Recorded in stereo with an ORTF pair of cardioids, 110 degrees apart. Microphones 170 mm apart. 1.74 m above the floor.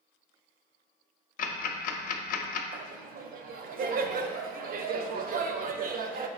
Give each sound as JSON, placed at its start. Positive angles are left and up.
{"t": 1.4, "sound": "ticking", "azimuth_deg": 55, "distance_m": 0.6}
{"t": 2.7, "sound": "laughter", "azimuth_deg": -60, "distance_m": 0.6}